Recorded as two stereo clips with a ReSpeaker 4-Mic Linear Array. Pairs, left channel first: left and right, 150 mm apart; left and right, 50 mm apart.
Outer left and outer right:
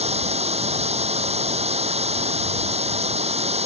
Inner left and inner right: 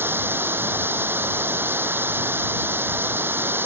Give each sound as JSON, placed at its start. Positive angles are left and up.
{"t": 0.0, "sound": "running water", "side_deg": -45}